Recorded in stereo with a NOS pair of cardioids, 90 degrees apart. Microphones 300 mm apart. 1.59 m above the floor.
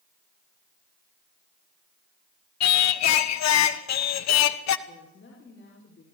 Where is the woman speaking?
40° left, 6 m.